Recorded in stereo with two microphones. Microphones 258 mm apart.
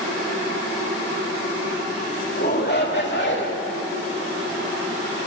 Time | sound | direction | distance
2.4 | a shout | 40° left (ahead or behind) | 2.5 m